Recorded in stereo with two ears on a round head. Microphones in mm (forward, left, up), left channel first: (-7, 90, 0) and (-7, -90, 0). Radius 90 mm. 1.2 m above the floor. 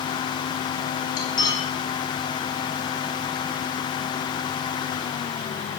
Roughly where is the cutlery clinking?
Centre.